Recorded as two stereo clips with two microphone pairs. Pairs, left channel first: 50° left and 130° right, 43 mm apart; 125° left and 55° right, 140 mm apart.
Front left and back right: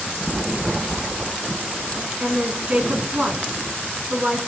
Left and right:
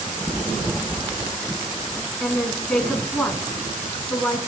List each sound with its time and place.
2.2 s a woman speaking: 155° right, 1.5 m